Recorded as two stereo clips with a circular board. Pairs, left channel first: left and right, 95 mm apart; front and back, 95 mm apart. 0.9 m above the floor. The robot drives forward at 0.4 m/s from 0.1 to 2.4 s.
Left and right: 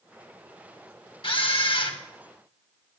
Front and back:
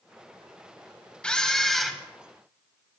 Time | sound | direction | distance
1.2 | a camera shutter | 80° left | 1.5 m